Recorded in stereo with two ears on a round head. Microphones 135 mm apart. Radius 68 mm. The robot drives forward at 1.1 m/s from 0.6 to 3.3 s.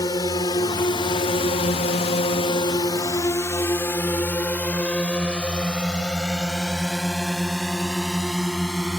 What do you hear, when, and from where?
0.0 s a drone: 25° left (ahead or behind); by 9.0 s centre (ahead or behind)